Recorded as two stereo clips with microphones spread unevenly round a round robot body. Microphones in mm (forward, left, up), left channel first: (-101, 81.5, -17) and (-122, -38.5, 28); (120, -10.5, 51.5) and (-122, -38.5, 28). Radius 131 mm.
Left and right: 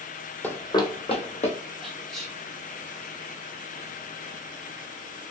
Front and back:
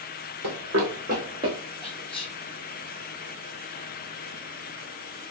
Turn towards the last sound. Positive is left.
turn(degrees=55)